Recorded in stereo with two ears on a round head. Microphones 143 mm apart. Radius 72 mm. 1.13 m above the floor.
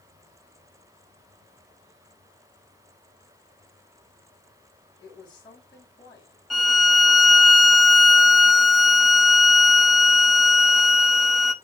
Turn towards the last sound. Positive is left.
turn(degrees=0)  # may be behind; listen again after turning